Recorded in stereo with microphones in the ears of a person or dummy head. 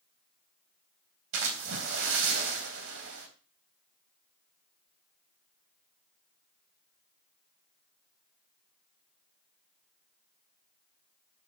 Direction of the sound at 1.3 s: 70° right (ahead or behind).